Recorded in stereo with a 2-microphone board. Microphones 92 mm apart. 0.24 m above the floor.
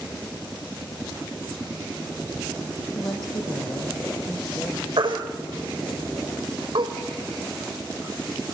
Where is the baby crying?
60° right (ahead or behind), 4 m.